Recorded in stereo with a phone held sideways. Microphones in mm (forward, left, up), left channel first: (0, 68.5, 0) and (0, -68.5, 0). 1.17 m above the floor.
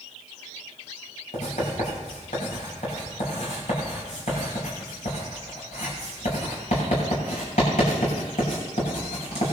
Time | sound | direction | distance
1.3 | writing | 65° left (ahead or behind) | 7.5 m